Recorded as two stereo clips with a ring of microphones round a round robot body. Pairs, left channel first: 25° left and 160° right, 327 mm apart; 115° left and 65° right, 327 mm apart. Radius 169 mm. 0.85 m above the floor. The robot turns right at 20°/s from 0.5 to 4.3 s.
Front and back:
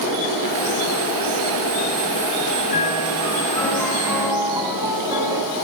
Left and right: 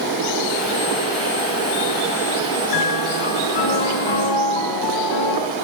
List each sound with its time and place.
2.7 s a piano: 90° left, 7 m; by 5.4 s 120° left, 7 m